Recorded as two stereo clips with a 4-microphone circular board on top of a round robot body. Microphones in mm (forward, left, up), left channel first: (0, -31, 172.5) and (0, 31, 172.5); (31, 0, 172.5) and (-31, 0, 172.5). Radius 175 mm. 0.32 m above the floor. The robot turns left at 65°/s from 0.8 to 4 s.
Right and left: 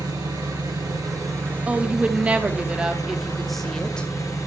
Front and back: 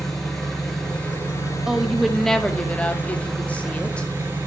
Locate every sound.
0.0 s an engine running: 85° left, 4 m; by 4.5 s 125° right, 4 m
1.7 s a woman speaking: 115° left, 1.3 m; by 4.1 s 40° right, 1.3 m